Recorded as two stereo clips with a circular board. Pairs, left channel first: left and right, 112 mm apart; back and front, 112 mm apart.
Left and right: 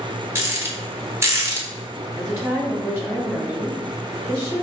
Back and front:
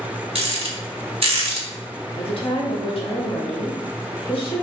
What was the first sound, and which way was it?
A rattle, 25° right.